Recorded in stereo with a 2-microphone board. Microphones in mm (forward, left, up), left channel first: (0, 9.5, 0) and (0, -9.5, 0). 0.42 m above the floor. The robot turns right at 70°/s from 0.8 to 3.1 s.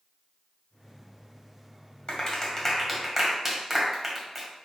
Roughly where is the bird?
I don't hear a bird.